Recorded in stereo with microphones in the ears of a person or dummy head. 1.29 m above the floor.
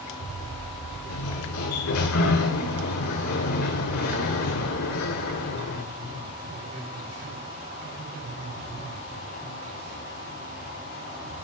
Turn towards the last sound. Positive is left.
turn(degrees=85)